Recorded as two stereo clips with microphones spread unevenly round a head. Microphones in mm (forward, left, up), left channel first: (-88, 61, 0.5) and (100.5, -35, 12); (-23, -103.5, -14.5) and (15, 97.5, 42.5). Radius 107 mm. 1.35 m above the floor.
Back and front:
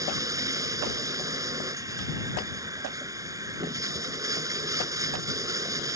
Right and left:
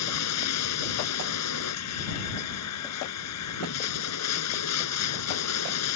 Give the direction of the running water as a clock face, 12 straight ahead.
3 o'clock.